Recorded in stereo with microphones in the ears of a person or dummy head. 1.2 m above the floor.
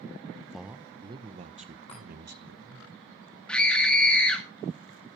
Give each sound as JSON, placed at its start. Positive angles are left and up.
{"t": 0.5, "sound": "a man speaking", "side_deg": 0, "distance_m": 0.6}
{"t": 1.9, "sound": "a chime", "side_deg": 30, "distance_m": 10.0}
{"t": 3.5, "sound": "a scream", "side_deg": 5, "distance_m": 1.9}